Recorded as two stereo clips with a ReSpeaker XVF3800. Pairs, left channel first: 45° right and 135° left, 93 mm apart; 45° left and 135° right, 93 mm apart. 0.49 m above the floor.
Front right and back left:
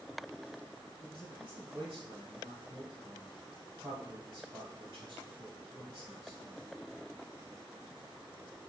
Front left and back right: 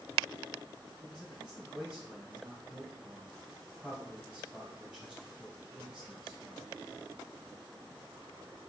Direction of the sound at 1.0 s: 145° left.